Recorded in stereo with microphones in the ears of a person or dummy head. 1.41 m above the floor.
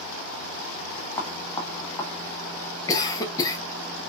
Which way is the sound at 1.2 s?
20° left (ahead or behind).